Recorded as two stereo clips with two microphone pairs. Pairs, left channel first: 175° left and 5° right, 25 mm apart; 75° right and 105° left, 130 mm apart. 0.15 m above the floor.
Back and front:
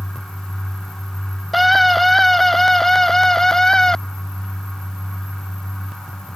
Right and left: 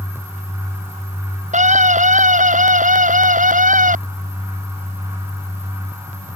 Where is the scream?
85° left; by 4.0 s 105° left.